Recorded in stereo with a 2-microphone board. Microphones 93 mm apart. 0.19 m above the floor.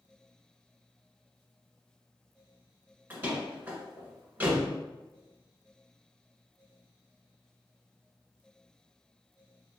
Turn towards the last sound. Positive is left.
turn(degrees=-20)  # may be behind; listen again after turning